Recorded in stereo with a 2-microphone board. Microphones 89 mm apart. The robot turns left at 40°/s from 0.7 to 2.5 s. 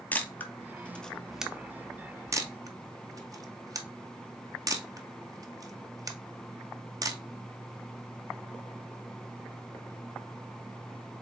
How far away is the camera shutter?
About 0.7 m.